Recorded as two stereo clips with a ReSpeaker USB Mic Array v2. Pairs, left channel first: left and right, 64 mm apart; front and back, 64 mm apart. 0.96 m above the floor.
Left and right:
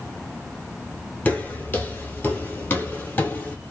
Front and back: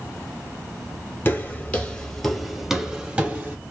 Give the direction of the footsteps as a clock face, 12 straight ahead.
11 o'clock.